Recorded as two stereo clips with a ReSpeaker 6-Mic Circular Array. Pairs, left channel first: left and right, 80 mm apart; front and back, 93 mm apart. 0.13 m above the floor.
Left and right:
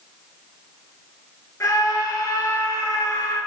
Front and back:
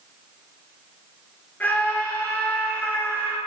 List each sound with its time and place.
1.6 s a scream: 65° left, 2 m